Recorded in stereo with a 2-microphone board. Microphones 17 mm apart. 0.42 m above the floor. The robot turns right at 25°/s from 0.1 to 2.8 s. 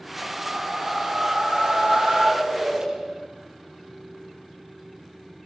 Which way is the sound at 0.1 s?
110° right.